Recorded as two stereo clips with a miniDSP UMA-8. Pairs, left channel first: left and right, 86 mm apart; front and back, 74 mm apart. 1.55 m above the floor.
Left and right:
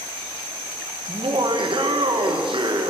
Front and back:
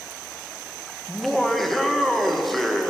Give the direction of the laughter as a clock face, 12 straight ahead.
3 o'clock.